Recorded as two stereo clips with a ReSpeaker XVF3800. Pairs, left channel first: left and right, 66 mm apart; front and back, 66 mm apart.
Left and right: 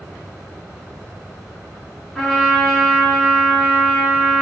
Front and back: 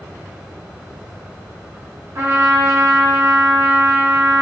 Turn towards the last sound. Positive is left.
turn(degrees=170)